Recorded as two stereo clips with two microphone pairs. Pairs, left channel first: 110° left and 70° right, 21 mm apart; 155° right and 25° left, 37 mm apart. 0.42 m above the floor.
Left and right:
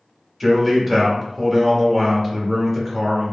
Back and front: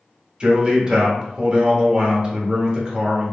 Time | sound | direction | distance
0.4 | a man speaking | 15° left | 0.9 m